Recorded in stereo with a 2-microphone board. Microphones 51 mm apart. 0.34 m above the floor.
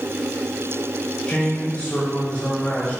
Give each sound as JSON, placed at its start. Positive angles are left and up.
{"t": 1.3, "sound": "a man speaking", "side_deg": 30, "distance_m": 1.0}